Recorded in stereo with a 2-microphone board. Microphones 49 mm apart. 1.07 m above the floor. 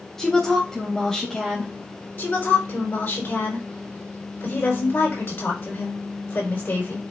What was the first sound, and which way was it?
A woman speaking, 10° left (ahead or behind).